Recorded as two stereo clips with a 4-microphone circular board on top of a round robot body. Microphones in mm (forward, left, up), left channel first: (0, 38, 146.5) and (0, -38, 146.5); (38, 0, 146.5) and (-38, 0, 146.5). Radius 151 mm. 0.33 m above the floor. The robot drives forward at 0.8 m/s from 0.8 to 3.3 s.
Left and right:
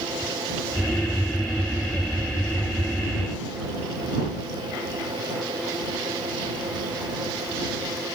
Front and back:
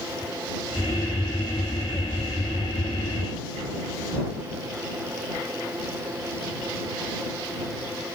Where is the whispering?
No whispering in this recording.